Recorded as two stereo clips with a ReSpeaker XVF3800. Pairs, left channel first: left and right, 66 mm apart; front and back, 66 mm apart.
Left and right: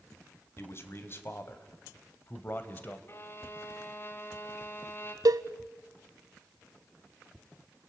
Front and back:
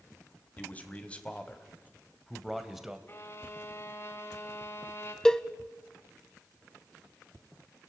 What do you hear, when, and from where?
0.6 s a man speaking: 55° left, 2 m; by 3.0 s 100° left, 1.7 m
3.1 s a violin: 45° left, 1.8 m
5.2 s a cowbell: 80° right, 0.6 m